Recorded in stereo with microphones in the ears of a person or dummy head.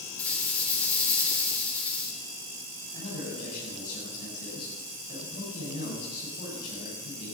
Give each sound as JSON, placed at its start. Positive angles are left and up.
{"t": 0.2, "sound": "a rattle", "side_deg": 10, "distance_m": 3.5}
{"t": 2.9, "sound": "a man speaking", "side_deg": 60, "distance_m": 8.0}